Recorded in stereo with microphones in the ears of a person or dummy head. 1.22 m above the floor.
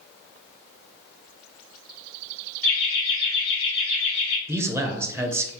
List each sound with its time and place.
2.6 s laughter: 55° left (ahead or behind), 1.4 m; by 4.4 s 80° left, 2.5 m
4.5 s a man speaking: 10° right (ahead or behind), 0.6 m